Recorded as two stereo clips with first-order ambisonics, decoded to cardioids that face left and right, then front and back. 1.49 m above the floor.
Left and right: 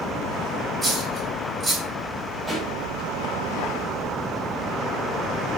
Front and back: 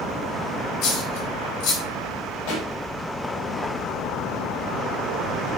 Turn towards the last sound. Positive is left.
turn(degrees=-5)